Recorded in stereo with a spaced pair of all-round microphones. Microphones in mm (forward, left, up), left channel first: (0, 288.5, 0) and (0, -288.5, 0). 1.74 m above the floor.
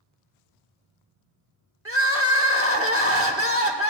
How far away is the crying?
About 0.7 m.